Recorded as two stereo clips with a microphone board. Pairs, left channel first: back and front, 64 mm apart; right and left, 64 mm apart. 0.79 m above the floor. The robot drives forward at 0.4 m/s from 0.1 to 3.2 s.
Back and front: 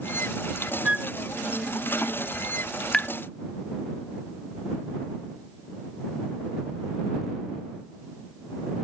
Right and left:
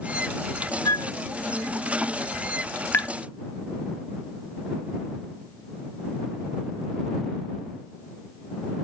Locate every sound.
0.8 s a flute: 70° right; by 1.1 s 80° right
2.9 s tapping: 110° right; by 3.1 s 115° right